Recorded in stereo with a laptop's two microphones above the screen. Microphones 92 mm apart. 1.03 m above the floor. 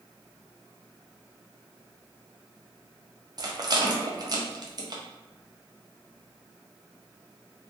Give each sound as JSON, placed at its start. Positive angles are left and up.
{"t": 3.4, "sound": "a rattle", "side_deg": -45, "distance_m": 0.5}